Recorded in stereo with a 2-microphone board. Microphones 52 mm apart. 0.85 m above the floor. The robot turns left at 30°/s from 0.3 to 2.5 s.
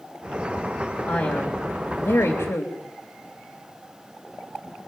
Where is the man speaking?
130° left, 3 m; by 2.7 s 90° left, 3 m.